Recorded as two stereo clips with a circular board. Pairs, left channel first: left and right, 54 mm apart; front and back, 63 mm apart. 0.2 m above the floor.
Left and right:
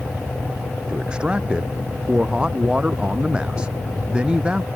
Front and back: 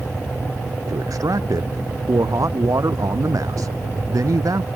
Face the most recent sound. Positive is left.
turn(degrees=-160)